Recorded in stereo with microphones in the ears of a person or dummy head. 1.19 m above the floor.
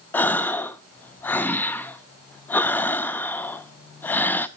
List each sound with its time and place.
0.1 s a gasp: 10° left (ahead or behind), 0.7 m